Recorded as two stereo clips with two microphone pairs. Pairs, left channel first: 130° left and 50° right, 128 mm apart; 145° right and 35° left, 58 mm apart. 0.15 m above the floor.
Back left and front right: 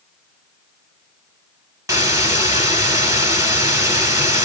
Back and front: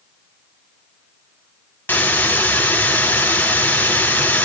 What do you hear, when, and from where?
1.9 s a hiss: 105° right, 1.1 m